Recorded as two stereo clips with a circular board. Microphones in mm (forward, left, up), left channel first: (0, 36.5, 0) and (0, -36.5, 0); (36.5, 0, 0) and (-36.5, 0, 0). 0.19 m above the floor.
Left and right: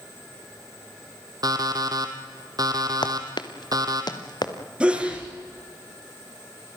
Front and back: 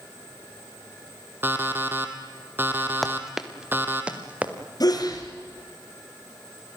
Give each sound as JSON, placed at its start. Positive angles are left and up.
{"t": 1.4, "sound": "an alarm clock", "azimuth_deg": -120, "distance_m": 2.5}
{"t": 3.0, "sound": "running footsteps", "azimuth_deg": 90, "distance_m": 1.6}
{"t": 4.8, "sound": "a sneeze", "azimuth_deg": -15, "distance_m": 3.5}